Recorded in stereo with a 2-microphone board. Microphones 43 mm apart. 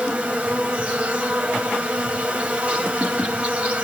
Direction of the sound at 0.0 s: 30° right (ahead or behind).